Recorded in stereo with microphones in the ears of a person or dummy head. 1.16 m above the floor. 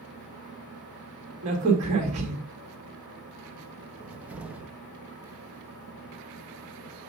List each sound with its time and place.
0.0 s a fan: centre (ahead or behind), 5.5 m
1.4 s a crack: 40° right (ahead or behind), 2 m
4.0 s a cupboard door: 5° right (ahead or behind), 0.6 m